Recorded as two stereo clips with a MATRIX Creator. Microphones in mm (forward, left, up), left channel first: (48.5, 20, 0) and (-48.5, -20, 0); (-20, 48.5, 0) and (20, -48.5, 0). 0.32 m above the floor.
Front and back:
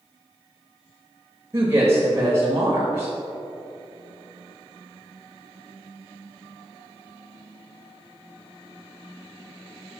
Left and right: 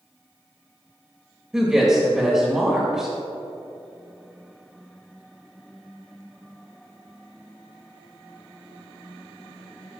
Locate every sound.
1.5 s a woman speaking: 150° right, 1.2 m